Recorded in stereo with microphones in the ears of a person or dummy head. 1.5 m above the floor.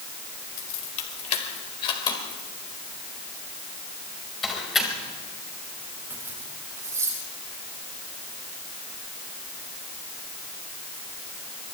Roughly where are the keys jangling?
Left.